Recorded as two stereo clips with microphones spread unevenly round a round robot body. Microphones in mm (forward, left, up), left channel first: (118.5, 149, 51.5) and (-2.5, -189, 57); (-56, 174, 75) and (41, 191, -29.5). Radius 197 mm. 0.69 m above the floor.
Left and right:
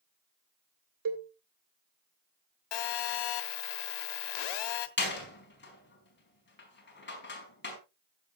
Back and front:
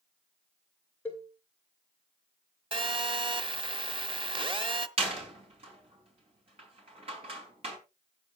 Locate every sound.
1.1 s a cowbell: 75° right, 2.5 m
2.7 s a phone buzzing: 55° left, 1.3 m
5.0 s a door slam: 10° left, 4.5 m